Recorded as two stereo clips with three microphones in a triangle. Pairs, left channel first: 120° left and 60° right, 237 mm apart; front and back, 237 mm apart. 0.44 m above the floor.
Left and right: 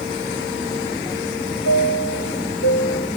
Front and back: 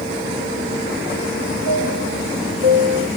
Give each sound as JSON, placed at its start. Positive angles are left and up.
{"t": 1.6, "sound": "a chime", "azimuth_deg": 145, "distance_m": 0.8}